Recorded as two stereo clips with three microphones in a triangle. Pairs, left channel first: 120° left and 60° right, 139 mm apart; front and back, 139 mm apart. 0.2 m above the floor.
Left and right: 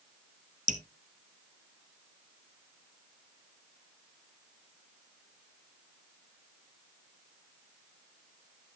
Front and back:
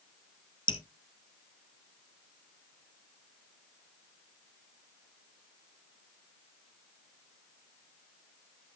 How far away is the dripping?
About 1.0 m.